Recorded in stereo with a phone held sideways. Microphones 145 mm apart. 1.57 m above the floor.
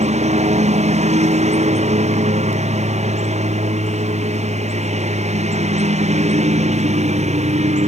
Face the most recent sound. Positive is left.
turn(degrees=-45)  # may be behind; listen again after turning